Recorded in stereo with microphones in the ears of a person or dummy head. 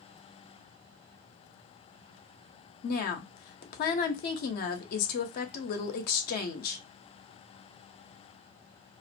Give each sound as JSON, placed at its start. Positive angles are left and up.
{"t": 2.8, "sound": "a woman speaking", "side_deg": 55, "distance_m": 0.7}